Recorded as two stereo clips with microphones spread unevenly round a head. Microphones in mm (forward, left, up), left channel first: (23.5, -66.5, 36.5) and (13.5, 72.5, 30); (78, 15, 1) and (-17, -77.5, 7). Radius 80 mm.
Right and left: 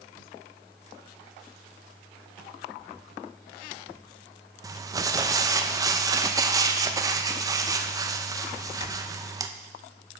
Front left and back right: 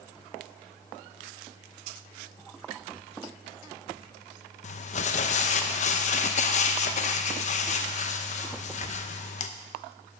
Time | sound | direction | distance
4.6 | crumpling | 35° left | 0.7 m